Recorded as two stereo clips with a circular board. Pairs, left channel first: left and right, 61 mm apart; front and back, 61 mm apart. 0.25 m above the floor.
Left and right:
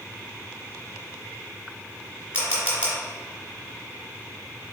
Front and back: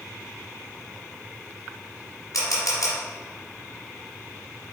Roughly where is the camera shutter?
Ahead right.